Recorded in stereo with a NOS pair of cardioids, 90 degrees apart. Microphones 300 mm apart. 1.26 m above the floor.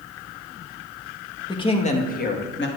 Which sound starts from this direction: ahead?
A woman speaking, at 1.5 s.